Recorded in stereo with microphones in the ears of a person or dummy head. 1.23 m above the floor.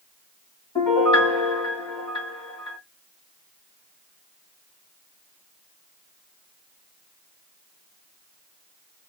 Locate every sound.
0.8 s a piano: 25° left (ahead or behind), 1.4 m